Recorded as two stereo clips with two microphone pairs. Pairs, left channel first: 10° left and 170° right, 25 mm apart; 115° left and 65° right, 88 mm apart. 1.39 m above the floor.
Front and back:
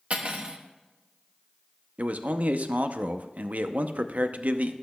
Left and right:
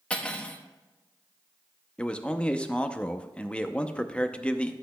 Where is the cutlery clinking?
175° right, 1.0 m.